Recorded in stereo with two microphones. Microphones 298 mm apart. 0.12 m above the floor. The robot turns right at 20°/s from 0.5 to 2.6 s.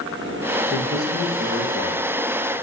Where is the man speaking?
10° left (ahead or behind), 1.3 m; by 2.1 s 20° left (ahead or behind), 1.3 m.